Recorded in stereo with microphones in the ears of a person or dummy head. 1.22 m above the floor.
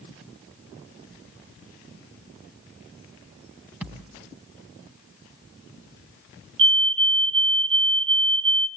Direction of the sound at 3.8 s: 10° right (ahead or behind).